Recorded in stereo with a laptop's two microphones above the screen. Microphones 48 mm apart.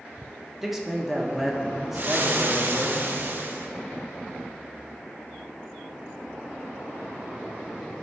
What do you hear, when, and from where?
0.6 s a man speaking: 5° right (ahead or behind), 0.9 m
1.9 s frying: 45° right (ahead or behind), 1.0 m